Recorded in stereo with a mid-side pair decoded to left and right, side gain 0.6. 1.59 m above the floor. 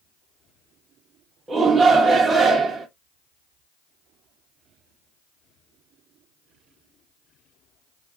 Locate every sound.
1.5 s a shout: 25° right, 0.7 m